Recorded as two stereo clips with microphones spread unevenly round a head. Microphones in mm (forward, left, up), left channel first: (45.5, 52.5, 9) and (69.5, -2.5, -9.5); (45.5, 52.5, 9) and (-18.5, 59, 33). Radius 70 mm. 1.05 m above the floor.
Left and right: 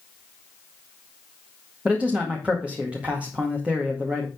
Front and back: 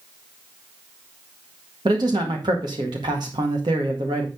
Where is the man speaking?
140° right, 1.9 m.